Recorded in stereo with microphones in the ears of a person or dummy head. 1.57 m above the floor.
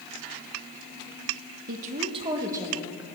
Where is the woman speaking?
55° right (ahead or behind), 1.2 m; by 3.0 s 10° right (ahead or behind), 2 m.